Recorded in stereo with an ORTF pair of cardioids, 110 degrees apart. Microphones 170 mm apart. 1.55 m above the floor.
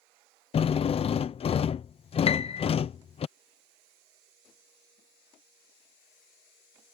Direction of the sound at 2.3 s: 35° left.